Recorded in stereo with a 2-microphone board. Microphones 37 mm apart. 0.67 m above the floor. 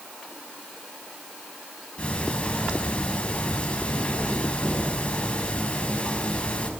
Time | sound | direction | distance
2.0 | ticking | 30° left (ahead or behind) | 5.5 m